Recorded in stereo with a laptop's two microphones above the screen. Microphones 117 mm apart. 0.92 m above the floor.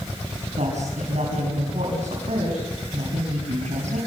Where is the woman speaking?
80° right, 6 m.